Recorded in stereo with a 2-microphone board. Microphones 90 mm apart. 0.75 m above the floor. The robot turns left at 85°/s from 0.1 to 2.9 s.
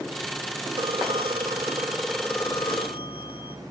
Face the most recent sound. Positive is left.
turn(degrees=100)